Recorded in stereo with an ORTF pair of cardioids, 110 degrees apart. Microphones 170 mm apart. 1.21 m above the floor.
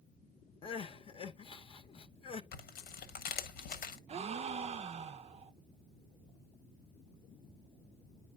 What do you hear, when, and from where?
0.6 s crying: 30° left, 0.9 m
2.5 s tearing paper: 65° left, 1.2 m
4.1 s a gasp: 35° right, 0.5 m